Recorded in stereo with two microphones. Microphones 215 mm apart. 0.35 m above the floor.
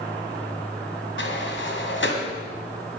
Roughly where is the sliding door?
Left.